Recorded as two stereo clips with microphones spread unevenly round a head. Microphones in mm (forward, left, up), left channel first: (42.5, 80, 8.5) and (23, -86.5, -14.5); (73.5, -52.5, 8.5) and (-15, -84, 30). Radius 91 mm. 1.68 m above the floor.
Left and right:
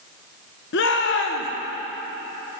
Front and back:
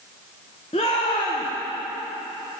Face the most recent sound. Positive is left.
turn(degrees=85)